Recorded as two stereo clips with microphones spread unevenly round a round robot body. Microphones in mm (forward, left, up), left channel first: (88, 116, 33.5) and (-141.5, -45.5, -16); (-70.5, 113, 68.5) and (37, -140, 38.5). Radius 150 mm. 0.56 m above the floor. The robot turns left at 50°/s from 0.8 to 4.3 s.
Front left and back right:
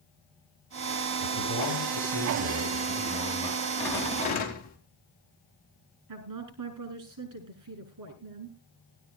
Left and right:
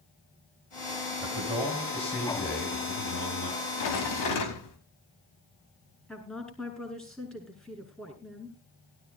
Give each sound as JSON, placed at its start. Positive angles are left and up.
{"t": 1.2, "sound": "a man speaking", "azimuth_deg": -120, "distance_m": 9.0}
{"t": 3.8, "sound": "a rattle", "azimuth_deg": 125, "distance_m": 4.0}
{"t": 6.1, "sound": "a woman speaking", "azimuth_deg": -160, "distance_m": 5.5}